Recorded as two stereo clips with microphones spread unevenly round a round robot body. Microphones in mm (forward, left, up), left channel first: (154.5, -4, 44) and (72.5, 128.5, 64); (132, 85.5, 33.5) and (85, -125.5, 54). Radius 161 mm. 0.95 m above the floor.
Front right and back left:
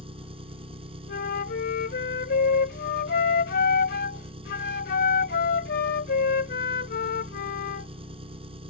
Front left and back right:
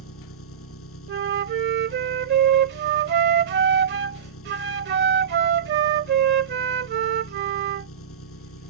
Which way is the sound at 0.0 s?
75° left.